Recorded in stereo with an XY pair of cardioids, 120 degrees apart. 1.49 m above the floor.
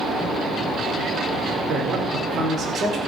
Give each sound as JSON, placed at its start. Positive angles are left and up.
{"t": 1.7, "sound": "a man speaking", "azimuth_deg": -40, "distance_m": 4.0}